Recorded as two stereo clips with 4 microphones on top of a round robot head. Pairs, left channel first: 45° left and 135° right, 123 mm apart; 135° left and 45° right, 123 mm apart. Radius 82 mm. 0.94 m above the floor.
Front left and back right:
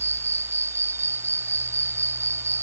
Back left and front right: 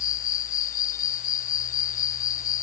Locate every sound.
0.0 s an insect: 155° left